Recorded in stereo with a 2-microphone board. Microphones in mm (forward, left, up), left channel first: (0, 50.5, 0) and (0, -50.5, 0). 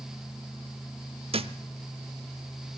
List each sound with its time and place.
1.3 s a thud: 65° right (ahead or behind), 0.7 m